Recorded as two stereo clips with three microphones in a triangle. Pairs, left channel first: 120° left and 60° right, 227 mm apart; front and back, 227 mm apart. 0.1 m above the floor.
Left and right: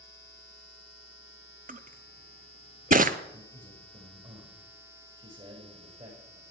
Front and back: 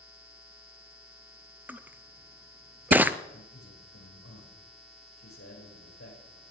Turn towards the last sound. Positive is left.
turn(degrees=-5)